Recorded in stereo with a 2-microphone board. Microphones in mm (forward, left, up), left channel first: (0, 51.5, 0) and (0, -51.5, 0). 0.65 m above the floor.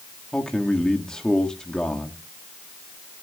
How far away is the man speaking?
About 1.4 m.